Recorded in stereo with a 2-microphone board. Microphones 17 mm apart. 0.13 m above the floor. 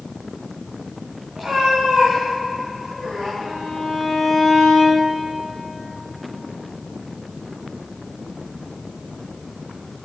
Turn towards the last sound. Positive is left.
turn(degrees=-20)  # may be behind; listen again after turning